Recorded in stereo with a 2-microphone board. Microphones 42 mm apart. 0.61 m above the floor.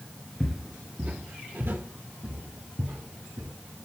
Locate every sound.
0.4 s footsteps: 10° left (ahead or behind), 0.6 m; by 3.5 s 70° right (ahead or behind), 2.5 m